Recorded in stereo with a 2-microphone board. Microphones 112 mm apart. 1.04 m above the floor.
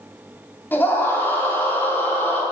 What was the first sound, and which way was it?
A scream, 20° left (ahead or behind).